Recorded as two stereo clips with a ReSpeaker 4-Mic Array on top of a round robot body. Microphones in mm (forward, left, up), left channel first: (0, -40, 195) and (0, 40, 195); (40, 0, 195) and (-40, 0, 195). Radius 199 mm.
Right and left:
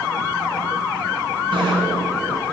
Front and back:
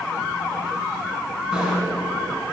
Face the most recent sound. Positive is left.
turn(degrees=100)